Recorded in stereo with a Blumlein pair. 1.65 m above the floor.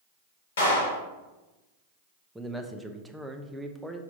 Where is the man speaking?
5° right, 0.7 m.